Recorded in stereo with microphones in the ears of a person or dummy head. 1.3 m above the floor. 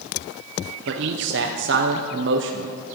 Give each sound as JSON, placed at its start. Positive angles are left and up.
{"t": 0.9, "sound": "a man speaking", "side_deg": -50, "distance_m": 0.7}